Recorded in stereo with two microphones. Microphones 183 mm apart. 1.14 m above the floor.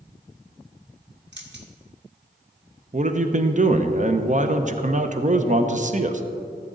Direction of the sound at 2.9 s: 45° right (ahead or behind).